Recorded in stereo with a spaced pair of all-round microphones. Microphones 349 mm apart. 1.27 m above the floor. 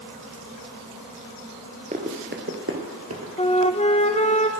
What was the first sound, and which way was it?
Running footsteps, 20° right (ahead or behind).